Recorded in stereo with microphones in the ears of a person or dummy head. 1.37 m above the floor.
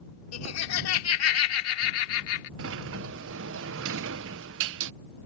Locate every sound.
0.3 s laughter: 85° left; by 2.5 s 75° left (ahead or behind)
2.6 s a sliding door: 75° right (ahead or behind)